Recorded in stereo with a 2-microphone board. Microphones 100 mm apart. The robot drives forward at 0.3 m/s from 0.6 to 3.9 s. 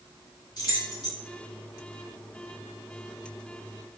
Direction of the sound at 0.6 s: 40° left (ahead or behind).